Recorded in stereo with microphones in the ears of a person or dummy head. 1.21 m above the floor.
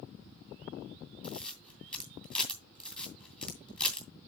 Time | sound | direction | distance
1.2 | a camera shutter | 10° left (ahead or behind) | 2 m